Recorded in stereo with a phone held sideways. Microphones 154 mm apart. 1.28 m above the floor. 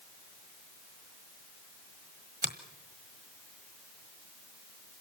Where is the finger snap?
60° right (ahead or behind), 1.4 m.